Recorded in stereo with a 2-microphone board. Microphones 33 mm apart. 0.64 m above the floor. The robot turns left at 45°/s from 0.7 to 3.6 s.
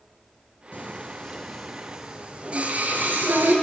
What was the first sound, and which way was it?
Singing, 50° left (ahead or behind).